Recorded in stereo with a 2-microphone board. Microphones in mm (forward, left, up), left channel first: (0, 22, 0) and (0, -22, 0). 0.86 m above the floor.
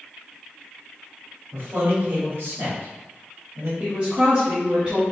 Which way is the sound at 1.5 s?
70° right (ahead or behind).